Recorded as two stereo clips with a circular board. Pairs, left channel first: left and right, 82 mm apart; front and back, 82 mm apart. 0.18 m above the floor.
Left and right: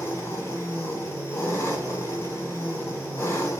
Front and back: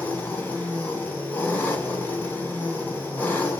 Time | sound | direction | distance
0.0 | an engine running | 60° left | 1.6 m